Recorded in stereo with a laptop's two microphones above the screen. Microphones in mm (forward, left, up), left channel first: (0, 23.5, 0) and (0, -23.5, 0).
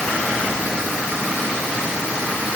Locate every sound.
Only background noise.